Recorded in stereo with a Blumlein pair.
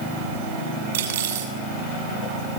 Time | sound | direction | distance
0.9 | cutlery clinking | 65° right | 6.5 m